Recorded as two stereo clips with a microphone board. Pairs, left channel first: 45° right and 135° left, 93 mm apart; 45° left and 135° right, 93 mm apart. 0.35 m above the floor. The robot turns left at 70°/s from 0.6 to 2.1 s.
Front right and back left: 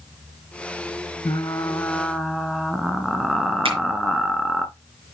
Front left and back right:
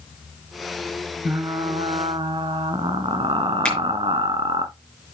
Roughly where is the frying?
Right.